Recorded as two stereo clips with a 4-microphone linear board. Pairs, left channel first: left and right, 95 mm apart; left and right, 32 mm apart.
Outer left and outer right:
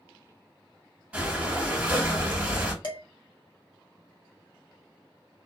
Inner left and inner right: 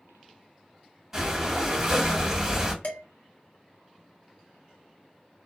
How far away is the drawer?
I don't hear a drawer.